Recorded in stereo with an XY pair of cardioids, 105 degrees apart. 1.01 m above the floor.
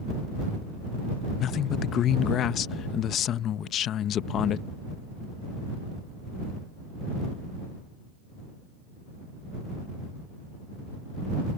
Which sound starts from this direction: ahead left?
A man speaking, at 1.4 s.